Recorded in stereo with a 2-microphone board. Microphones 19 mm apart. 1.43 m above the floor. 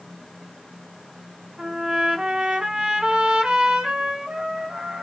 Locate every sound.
1.6 s a trumpet: 55° right (ahead or behind), 0.7 m